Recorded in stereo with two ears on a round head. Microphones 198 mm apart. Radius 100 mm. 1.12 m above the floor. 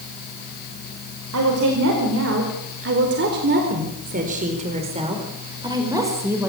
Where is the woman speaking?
75° right (ahead or behind), 4.5 m; by 6.5 s 10° right (ahead or behind), 5 m.